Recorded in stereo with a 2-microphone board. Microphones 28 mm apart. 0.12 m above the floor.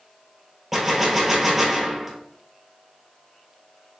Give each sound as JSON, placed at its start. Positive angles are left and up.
{"t": 0.7, "sound": "a gunshot", "side_deg": -10, "distance_m": 1.1}